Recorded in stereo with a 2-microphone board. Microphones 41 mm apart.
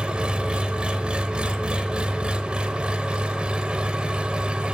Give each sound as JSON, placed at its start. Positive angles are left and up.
{"t": 0.0, "sound": "an engine running", "side_deg": -20, "distance_m": 0.7}